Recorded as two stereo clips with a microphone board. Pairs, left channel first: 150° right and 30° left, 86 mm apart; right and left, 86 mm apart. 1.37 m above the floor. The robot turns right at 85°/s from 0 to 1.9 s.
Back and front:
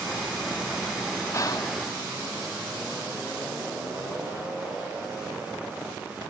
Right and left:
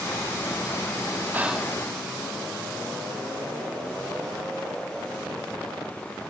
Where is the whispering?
155° left, 0.7 m; by 1.7 s 170° right, 0.7 m.